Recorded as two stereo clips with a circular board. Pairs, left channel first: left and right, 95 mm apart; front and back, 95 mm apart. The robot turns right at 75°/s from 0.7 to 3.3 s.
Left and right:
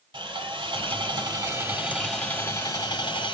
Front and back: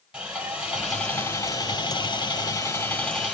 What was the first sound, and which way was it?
Sawing, 100° right.